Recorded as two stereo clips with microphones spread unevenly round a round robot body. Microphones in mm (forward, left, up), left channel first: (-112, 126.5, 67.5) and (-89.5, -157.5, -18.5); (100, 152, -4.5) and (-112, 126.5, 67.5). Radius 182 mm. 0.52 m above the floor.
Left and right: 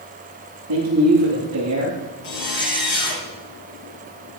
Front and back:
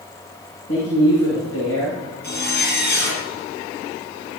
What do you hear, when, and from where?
0.7 s a man speaking: 40° right, 9 m; by 2.1 s 30° right, 8 m
2.2 s a zipper: 50° left, 4.5 m